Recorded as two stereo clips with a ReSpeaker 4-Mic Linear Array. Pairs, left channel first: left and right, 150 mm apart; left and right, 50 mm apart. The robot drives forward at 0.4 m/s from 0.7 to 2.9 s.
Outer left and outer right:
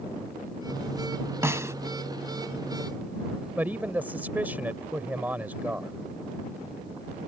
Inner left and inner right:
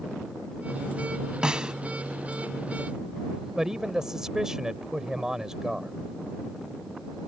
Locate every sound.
1.4 s a snare drum: 15° right (ahead or behind); by 1.7 s 20° right (ahead or behind)
3.6 s a man speaking: 10° right (ahead or behind)